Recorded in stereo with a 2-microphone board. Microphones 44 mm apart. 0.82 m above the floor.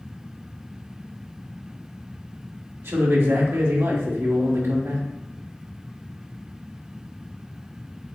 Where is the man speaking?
70° right (ahead or behind), 1.3 m.